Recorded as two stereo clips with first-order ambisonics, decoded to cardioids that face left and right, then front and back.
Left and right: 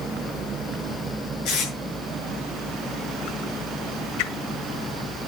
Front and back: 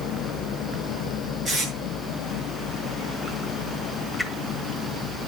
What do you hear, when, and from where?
1.4 s tape being pulled: 115° left, 7 m
4.2 s a whoosh: 85° left, 1.2 m